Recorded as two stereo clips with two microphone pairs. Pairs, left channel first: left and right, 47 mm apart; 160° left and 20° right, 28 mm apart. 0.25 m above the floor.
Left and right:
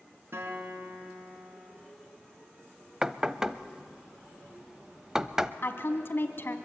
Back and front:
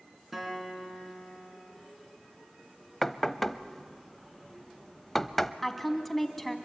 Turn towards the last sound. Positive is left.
turn(degrees=85)